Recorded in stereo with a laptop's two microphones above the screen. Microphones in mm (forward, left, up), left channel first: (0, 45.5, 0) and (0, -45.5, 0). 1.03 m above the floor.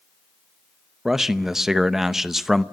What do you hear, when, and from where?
1.1 s a man speaking: 5° right (ahead or behind), 0.7 m